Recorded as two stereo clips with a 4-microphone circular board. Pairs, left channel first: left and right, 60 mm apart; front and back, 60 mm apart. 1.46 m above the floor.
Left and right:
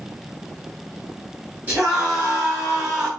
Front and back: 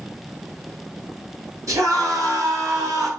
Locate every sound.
1.7 s a scream: 150° right, 9 m